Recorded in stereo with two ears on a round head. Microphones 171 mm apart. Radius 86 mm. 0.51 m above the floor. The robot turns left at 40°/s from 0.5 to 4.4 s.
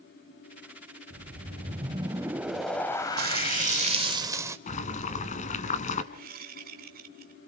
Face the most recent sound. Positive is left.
turn(degrees=-50)  # may be behind; listen again after turning